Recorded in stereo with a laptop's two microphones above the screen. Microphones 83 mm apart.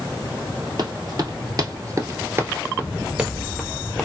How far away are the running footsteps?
About 1.6 m.